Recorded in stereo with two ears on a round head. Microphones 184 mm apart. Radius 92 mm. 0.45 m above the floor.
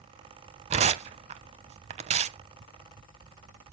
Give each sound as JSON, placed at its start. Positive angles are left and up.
{"t": 0.7, "sound": "tearing paper", "side_deg": -30, "distance_m": 0.6}